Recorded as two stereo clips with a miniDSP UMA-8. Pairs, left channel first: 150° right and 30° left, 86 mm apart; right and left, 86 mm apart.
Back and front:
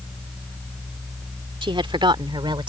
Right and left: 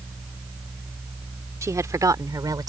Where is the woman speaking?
35° left; by 2.7 s 50° left.